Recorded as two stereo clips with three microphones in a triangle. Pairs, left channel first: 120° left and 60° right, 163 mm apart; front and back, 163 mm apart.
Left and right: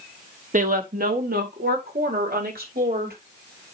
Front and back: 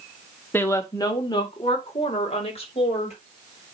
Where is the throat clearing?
No throat clearing in this recording.